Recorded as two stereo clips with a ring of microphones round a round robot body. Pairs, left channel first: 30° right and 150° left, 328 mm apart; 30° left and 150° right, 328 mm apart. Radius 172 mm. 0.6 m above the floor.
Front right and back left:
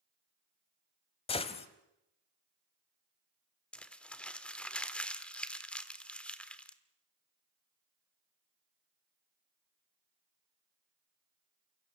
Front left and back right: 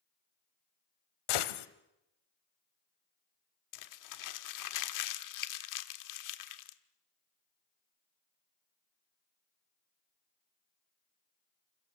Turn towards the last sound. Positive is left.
turn(degrees=55)